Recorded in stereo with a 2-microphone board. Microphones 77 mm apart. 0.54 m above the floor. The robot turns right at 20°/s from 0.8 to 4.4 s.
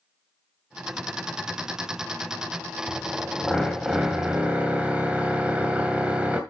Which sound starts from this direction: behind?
A drill, at 2.9 s.